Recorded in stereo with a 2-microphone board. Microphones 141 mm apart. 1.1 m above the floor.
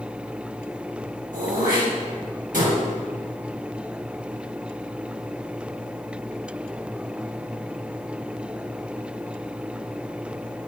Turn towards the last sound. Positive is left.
turn(degrees=-70)  # may be behind; listen again after turning